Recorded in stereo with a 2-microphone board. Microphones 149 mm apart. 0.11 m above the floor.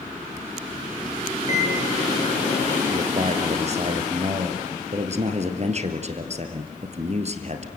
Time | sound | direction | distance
1.5 | a microwave | 50° left (ahead or behind) | 4 m
2.9 | a man speaking | 50° right (ahead or behind) | 2.5 m